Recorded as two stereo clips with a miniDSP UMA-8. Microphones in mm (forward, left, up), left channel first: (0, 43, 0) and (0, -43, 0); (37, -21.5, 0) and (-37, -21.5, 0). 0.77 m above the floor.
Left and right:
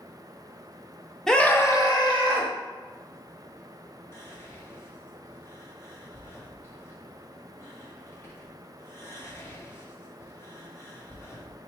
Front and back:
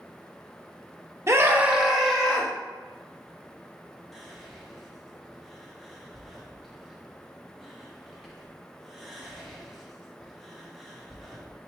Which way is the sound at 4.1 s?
95° left.